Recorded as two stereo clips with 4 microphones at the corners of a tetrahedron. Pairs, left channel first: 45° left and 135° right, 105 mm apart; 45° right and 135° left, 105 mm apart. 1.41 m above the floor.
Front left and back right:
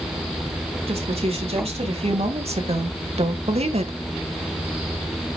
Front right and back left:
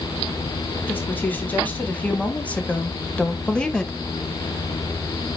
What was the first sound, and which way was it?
A woman speaking, 115° right.